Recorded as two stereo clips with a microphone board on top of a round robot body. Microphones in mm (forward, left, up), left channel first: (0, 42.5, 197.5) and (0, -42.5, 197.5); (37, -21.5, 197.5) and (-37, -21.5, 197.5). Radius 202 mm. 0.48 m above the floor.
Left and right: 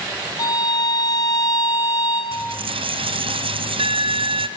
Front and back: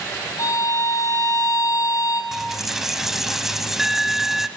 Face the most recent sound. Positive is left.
turn(degrees=-95)